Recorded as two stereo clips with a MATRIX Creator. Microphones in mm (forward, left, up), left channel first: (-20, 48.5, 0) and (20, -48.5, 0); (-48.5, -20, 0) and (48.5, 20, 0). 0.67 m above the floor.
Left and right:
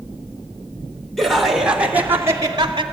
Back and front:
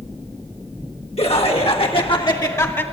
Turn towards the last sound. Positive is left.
turn(degrees=-95)